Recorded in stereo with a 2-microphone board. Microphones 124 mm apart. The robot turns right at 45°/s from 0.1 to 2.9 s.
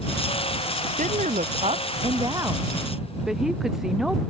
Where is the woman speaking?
95° right; by 4.2 s 5° right.